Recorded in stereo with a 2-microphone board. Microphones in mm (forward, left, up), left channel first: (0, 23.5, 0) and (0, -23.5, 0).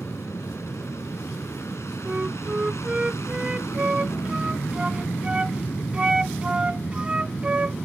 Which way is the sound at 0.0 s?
70° left (ahead or behind).